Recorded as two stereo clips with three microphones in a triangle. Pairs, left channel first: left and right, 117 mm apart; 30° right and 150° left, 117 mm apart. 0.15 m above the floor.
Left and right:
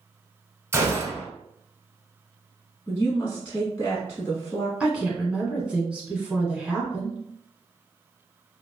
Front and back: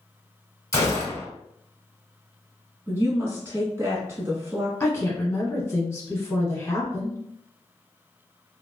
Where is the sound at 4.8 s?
20° right, 1.1 m.